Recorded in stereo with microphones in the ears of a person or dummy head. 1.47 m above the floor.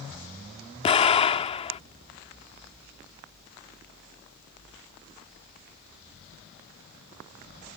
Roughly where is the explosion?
Left.